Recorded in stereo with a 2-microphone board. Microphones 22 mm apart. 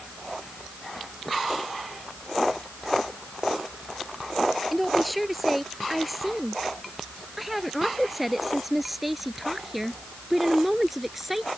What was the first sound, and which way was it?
A woman speaking, 5° right (ahead or behind).